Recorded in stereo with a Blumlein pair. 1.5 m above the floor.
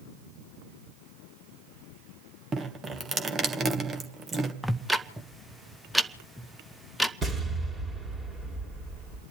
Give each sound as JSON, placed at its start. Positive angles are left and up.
{"t": 2.5, "sound": "dripping", "azimuth_deg": -20, "distance_m": 1.6}
{"t": 4.6, "sound": "ticking", "azimuth_deg": -5, "distance_m": 0.8}
{"t": 7.2, "sound": "an explosion", "azimuth_deg": -20, "distance_m": 3.0}